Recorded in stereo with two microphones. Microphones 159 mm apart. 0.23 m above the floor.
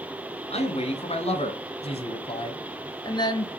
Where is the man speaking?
45° left (ahead or behind), 2.0 m; by 3.5 s 25° left (ahead or behind), 1.1 m.